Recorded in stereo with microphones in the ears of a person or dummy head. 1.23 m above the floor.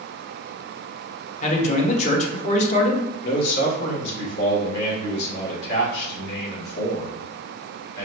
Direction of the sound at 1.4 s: 35° left (ahead or behind).